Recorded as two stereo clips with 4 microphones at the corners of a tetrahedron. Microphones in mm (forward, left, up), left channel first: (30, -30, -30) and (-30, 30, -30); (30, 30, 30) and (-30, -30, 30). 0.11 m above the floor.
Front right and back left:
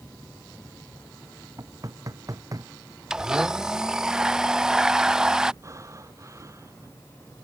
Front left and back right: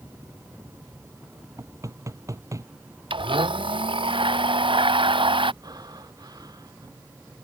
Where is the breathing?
175° right.